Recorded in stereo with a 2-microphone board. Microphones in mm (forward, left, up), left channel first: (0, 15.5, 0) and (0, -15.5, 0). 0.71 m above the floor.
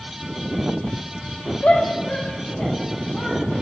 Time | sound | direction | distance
1.6 | a shout | 55° left (ahead or behind) | 3.5 m